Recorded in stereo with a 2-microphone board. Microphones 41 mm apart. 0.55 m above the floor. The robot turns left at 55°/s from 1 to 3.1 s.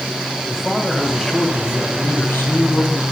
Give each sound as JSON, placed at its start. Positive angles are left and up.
{"t": 0.5, "sound": "a man speaking", "azimuth_deg": 175, "distance_m": 2.0}